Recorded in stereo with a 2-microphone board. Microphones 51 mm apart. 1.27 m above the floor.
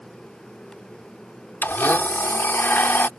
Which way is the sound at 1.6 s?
40° left (ahead or behind).